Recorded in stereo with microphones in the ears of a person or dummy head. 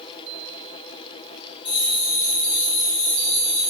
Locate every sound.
1.6 s a bell: 35° left (ahead or behind), 3.5 m